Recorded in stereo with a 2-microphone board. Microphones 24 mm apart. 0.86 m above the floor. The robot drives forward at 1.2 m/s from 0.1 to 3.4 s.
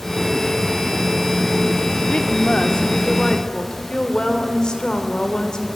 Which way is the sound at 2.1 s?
60° left (ahead or behind).